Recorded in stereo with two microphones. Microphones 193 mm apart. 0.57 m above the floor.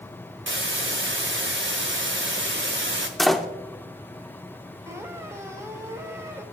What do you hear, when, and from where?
0.5 s a hiss: 80° right, 1.2 m
3.2 s a door slam: centre (ahead or behind), 0.7 m
4.9 s a squeak: 15° right (ahead or behind), 1.3 m